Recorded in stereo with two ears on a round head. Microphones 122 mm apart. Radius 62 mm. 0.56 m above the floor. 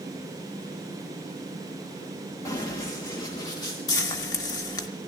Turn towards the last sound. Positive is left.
turn(degrees=30)  # may be behind; listen again after turning